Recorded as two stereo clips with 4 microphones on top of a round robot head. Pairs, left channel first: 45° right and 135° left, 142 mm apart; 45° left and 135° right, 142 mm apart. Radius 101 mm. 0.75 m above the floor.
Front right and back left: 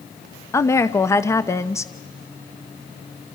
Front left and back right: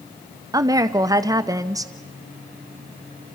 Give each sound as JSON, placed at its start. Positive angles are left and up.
{"t": 0.5, "sound": "a woman speaking", "azimuth_deg": -95, "distance_m": 0.9}